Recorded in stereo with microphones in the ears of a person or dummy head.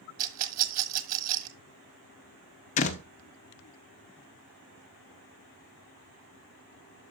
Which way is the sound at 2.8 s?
50° left (ahead or behind).